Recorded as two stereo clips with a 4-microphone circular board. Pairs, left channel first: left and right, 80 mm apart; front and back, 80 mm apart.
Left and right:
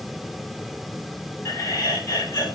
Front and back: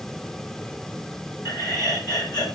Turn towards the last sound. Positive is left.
turn(degrees=35)